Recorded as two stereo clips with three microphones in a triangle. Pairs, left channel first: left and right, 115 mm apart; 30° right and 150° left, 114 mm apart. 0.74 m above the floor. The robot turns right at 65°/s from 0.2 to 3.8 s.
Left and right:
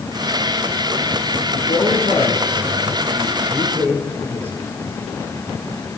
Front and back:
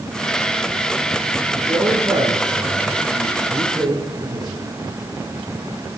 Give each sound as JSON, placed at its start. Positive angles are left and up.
{"t": 1.5, "sound": "a man speaking", "azimuth_deg": 50, "distance_m": 7.0}